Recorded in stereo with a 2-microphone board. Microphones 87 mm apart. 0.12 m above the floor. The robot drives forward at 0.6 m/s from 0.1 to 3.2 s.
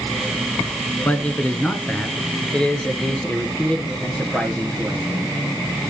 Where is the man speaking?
15° left (ahead or behind), 1.0 m; by 5.3 s 10° left (ahead or behind), 1.8 m.